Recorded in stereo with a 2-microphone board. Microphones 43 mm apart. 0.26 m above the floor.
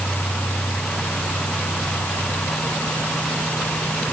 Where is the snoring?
I don't hear snoring.